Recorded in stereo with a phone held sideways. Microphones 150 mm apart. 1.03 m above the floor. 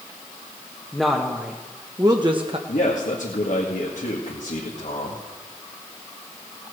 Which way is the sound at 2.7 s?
60° left (ahead or behind).